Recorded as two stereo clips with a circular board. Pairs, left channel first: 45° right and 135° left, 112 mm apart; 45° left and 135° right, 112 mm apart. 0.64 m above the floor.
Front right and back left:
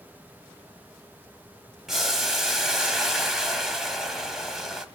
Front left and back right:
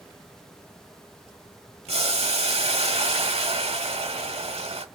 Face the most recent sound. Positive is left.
turn(degrees=-140)